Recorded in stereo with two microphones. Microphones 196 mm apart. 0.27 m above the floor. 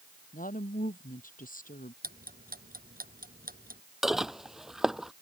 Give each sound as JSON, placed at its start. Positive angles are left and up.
{"t": 0.3, "sound": "a woman speaking", "side_deg": 45}
{"t": 2.0, "sound": "ticking", "side_deg": -50}
{"t": 4.0, "sound": "dishes clattering", "side_deg": 0}